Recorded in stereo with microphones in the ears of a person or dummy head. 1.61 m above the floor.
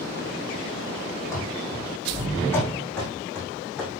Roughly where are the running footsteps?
Centre.